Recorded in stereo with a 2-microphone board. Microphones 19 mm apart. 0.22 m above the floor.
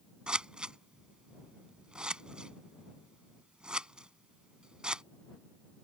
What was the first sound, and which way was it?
Scissors, 45° right (ahead or behind).